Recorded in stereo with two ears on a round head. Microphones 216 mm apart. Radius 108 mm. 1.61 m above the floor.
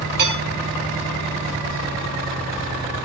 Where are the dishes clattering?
45° right (ahead or behind), 6 m.